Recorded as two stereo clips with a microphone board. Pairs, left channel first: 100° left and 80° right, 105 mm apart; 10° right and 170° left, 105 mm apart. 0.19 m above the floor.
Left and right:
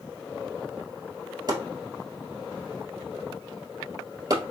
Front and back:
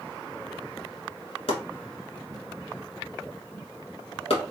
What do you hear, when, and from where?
1.5 s chopping: 30° right, 1.4 m